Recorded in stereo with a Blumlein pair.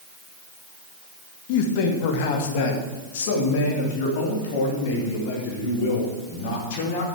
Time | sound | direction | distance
1.5 | a man speaking | 45° left | 1.7 m